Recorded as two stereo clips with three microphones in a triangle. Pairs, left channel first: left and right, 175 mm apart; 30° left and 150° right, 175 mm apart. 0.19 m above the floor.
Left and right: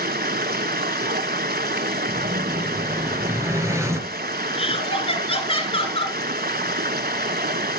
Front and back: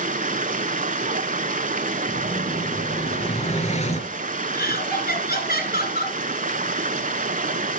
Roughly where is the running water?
Right.